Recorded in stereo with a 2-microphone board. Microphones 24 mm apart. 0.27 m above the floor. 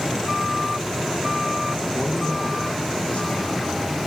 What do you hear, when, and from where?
1.9 s a man speaking: 75° left (ahead or behind), 6 m